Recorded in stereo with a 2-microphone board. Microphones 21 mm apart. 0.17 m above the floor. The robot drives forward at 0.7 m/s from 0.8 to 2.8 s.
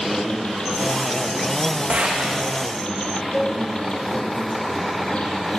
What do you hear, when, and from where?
0.0 s an insect: 60° left (ahead or behind), 7 m; by 5.6 s 55° left (ahead or behind), 8 m
1.9 s a gunshot: 75° right (ahead or behind), 7 m
3.3 s a cowbell: 5° right (ahead or behind), 4.5 m